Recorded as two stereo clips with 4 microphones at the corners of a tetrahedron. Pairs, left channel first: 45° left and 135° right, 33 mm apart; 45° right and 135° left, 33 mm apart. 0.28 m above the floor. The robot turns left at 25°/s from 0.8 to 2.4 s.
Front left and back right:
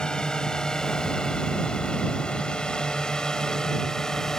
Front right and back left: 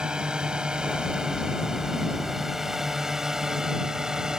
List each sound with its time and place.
0.0 s a drone: 90° left; by 4.4 s 95° left